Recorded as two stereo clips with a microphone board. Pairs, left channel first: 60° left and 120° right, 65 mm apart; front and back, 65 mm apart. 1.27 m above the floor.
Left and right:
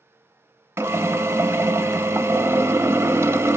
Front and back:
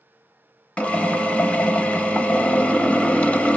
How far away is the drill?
About 0.7 m.